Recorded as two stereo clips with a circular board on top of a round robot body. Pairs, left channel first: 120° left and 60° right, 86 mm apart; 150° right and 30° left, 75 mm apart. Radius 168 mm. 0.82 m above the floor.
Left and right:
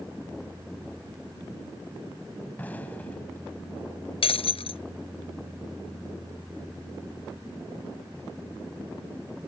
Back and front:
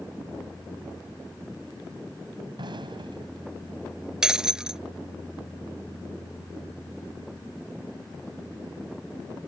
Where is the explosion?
45° left.